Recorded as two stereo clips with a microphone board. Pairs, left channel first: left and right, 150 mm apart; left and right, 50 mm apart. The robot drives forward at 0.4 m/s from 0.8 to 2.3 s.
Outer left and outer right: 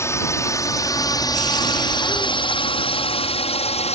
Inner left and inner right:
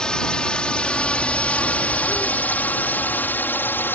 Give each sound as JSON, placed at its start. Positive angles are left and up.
{"t": 0.0, "sound": "a drone", "side_deg": 15}